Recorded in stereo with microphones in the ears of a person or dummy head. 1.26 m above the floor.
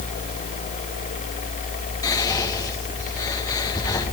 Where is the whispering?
20° left (ahead or behind), 2 m.